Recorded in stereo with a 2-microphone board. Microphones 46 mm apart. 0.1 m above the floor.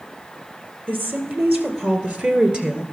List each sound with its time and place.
0.9 s a woman speaking: 40° right (ahead or behind), 2.5 m; by 2.8 s 20° right (ahead or behind), 1.5 m